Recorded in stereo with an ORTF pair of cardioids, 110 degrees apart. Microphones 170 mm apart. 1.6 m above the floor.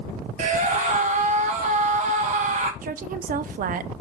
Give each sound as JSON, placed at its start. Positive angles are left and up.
{"t": 0.4, "sound": "a scream", "azimuth_deg": -45, "distance_m": 2.5}
{"t": 2.8, "sound": "a woman speaking", "azimuth_deg": -55, "distance_m": 0.9}